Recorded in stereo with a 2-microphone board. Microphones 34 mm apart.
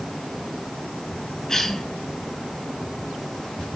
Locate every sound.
1.5 s a cough: 10° left (ahead or behind), 6 m